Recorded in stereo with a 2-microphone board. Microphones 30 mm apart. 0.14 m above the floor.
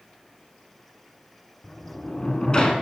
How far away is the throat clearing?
No throat clearing in this recording.